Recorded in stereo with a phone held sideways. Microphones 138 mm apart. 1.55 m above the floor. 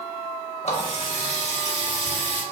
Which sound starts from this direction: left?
A running tap, at 0.6 s.